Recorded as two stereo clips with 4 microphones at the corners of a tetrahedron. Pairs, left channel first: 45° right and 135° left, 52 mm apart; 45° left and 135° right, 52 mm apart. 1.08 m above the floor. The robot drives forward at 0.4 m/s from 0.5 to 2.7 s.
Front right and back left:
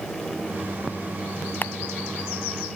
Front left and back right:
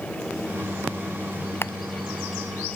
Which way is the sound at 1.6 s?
5° left.